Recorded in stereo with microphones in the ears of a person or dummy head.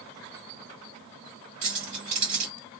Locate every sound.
1.6 s keys jangling: 40° right (ahead or behind), 1.3 m